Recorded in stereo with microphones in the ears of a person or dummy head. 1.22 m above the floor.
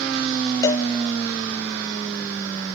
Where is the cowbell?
20° left (ahead or behind), 0.5 m.